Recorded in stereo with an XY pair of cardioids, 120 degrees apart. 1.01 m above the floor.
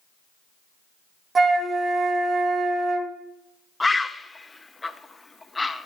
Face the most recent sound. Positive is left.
turn(degrees=15)